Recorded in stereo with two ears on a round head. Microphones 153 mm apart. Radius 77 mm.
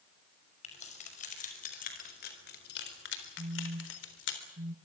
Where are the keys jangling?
40° left (ahead or behind), 6 m; by 4.4 s 75° left (ahead or behind), 3.5 m.